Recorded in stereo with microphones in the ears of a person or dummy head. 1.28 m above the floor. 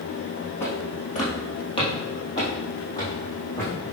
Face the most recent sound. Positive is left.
turn(degrees=15)  # may be behind; listen again after turning